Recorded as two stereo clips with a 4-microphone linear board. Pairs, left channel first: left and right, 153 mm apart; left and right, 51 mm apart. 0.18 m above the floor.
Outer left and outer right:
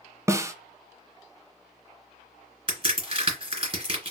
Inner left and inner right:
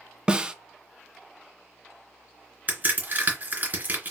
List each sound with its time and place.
0.3 s a snare drum: 20° right (ahead or behind), 0.5 m
2.7 s a crack: 40° right (ahead or behind), 2.5 m